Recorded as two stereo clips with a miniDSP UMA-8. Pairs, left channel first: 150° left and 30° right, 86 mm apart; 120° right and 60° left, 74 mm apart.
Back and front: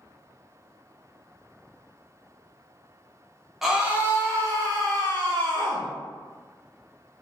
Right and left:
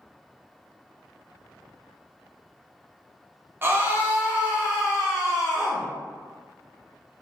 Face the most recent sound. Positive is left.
turn(degrees=-30)